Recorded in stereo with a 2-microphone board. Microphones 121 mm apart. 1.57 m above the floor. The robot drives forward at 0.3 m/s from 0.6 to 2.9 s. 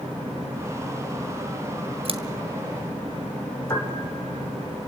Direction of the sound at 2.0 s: 50° right (ahead or behind).